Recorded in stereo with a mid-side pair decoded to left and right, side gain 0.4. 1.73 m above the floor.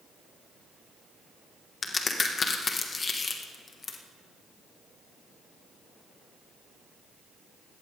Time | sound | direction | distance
1.8 | a crack | 40° left | 2.5 m